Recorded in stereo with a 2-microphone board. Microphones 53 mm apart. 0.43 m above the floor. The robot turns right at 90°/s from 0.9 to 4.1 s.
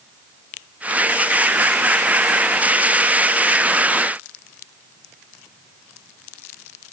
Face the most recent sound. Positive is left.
No sound to turn to.